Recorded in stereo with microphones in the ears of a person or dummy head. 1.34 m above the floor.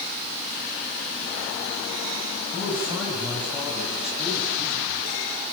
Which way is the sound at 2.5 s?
15° right (ahead or behind).